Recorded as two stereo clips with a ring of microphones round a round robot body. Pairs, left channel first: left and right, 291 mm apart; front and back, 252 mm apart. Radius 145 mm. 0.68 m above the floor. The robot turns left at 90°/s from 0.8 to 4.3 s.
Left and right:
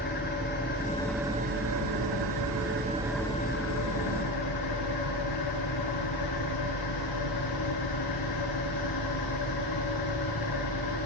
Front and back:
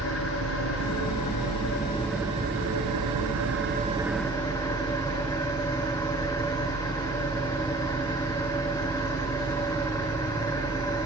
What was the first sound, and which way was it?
An engine running, 30° left.